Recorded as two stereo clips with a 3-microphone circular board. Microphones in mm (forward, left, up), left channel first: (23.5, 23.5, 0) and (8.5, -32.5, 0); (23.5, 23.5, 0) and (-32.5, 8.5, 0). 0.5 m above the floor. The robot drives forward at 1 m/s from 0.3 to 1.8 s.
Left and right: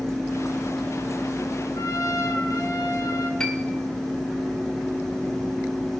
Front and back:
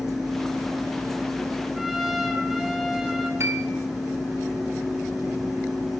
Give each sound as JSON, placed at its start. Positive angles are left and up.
{"t": 1.8, "sound": "a trumpet", "azimuth_deg": 105, "distance_m": 4.0}
{"t": 3.4, "sound": "a piano", "azimuth_deg": 155, "distance_m": 3.5}